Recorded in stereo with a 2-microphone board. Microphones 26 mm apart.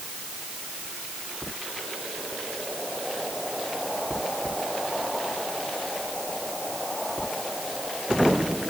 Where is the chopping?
I don't hear chopping.